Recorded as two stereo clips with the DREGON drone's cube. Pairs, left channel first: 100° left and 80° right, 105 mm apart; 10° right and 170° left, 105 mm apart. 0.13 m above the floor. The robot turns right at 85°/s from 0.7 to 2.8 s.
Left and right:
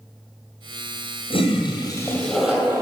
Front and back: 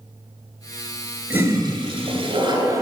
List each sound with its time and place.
1.3 s a toilet flushing: 95° left, 2 m; by 2.8 s 140° right, 2 m